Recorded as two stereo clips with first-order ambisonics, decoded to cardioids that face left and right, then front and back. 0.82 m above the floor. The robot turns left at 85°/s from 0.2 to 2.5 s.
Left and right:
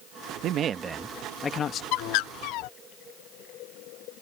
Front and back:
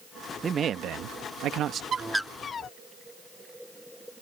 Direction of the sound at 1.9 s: 115° left.